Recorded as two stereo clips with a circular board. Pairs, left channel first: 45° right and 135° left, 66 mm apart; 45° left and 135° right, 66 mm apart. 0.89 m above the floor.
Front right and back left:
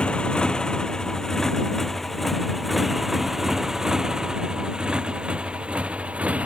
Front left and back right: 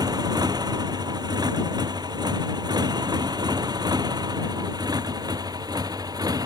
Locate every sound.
0.0 s a motorcycle: 120° right; by 6.5 s 155° right